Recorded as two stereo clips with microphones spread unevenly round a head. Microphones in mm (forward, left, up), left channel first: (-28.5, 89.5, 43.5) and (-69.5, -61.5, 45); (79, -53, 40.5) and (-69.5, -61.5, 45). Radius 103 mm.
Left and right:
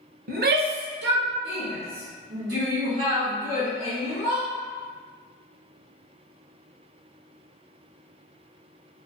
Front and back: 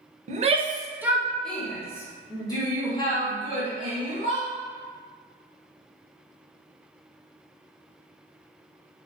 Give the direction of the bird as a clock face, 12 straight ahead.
No bird in this recording.